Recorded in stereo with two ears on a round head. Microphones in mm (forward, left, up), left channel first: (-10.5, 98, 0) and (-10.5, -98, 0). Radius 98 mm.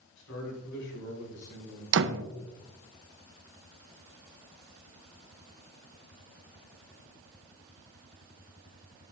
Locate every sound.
0.2 s a man speaking: 60° left (ahead or behind), 4.5 m; by 1.8 s 55° left (ahead or behind), 5.5 m
1.9 s a door slam: 60° right (ahead or behind), 0.6 m